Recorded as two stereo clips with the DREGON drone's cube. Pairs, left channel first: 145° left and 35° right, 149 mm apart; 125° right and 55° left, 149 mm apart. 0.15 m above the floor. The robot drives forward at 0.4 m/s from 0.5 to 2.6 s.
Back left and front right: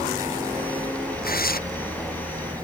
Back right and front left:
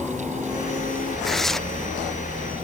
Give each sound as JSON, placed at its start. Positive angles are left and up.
{"t": 1.2, "sound": "tearing paper", "azimuth_deg": 145}